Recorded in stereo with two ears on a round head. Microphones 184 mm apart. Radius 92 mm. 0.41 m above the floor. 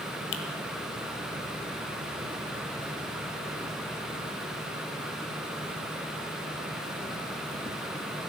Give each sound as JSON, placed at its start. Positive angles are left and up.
{"t": 0.3, "sound": "a finger snap", "side_deg": 60, "distance_m": 1.3}